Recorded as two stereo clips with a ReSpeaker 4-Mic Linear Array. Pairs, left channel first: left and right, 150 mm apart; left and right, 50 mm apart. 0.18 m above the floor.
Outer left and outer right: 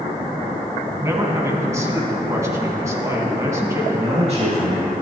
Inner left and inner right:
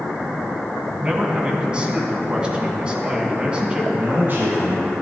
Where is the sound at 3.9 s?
45° right (ahead or behind), 3 m.